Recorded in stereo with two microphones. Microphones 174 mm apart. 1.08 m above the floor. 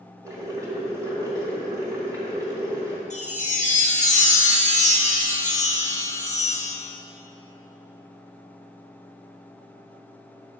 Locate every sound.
0.2 s boiling: 20° right (ahead or behind), 1.8 m
3.1 s a chime: 45° left (ahead or behind), 1.2 m